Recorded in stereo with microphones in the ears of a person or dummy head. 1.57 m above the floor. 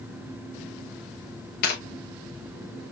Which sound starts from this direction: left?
Tearing paper, at 1.6 s.